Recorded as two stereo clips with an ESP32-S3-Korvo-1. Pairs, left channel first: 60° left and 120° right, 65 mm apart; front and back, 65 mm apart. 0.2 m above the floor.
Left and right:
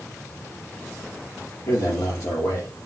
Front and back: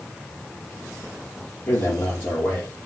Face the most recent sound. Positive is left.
turn(degrees=55)